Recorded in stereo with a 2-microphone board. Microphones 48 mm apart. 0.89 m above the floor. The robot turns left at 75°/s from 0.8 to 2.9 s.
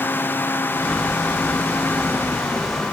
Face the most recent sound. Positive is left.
No sound to turn to.